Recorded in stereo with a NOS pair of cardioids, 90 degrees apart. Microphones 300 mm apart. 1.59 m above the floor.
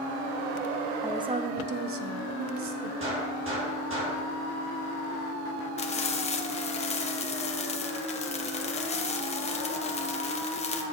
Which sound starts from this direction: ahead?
A woman speaking, at 1.0 s.